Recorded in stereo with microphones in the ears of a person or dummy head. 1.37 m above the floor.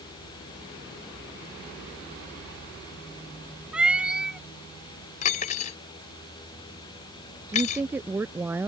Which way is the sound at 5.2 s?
40° left (ahead or behind).